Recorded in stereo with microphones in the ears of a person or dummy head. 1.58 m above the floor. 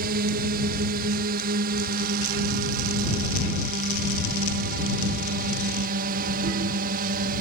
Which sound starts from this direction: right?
A drone, at 0.0 s.